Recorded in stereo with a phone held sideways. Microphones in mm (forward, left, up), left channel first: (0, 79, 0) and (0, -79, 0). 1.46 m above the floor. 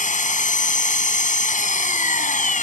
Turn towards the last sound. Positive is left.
turn(degrees=55)  # may be behind; listen again after turning